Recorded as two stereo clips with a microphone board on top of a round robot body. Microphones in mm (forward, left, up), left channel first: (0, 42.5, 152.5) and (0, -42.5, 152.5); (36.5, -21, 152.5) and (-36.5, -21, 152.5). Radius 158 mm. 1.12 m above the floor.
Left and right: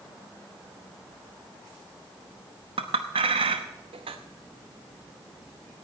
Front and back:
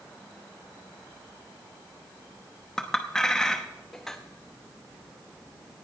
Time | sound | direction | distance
2.8 | a clink | 85° right | 0.8 m